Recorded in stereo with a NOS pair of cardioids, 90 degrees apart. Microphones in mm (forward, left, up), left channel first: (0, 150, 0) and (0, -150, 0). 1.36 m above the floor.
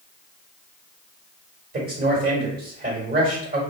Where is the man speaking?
30° right, 1.9 m.